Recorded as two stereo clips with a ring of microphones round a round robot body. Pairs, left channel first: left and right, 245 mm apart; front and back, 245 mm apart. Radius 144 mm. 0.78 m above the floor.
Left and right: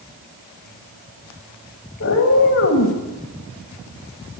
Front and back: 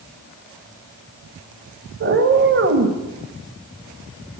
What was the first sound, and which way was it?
A cat meowing, 135° left.